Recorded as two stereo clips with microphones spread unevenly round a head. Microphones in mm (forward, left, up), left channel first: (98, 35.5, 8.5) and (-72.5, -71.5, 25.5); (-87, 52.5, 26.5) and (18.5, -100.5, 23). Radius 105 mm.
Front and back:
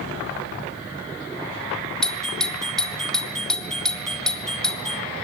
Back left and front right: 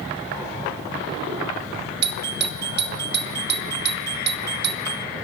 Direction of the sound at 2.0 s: 50° right.